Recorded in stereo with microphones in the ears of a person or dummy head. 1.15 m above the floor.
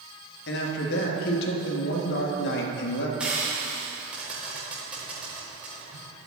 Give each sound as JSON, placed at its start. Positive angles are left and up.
{"t": 0.5, "sound": "a man speaking", "side_deg": 60, "distance_m": 1.4}
{"t": 3.2, "sound": "frying", "side_deg": -10, "distance_m": 3.5}